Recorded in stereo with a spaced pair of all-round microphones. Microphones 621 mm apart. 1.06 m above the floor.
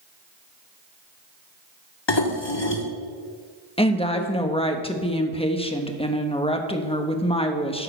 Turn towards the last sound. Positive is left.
turn(degrees=10)  # may be behind; listen again after turning